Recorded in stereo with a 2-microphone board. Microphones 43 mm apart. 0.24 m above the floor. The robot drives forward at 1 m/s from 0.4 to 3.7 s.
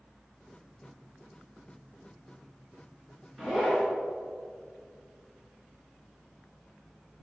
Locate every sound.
3.4 s a zipper: 5° right (ahead or behind), 2 m; by 3.9 s centre (ahead or behind), 2.5 m